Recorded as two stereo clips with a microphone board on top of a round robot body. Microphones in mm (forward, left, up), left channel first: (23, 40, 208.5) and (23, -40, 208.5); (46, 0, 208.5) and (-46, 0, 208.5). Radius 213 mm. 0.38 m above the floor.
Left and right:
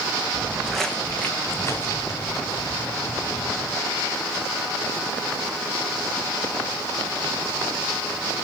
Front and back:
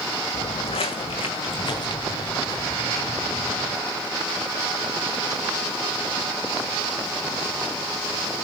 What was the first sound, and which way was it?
Footsteps, 15° right.